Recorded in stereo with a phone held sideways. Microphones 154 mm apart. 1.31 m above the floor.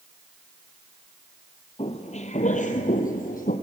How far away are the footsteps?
About 2 m.